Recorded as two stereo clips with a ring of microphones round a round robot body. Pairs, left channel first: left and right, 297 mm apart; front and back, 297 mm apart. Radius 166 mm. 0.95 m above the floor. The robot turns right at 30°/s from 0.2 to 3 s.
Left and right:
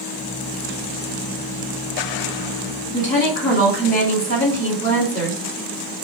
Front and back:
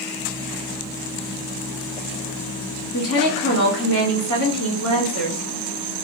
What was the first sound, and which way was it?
A woman speaking, 35° left.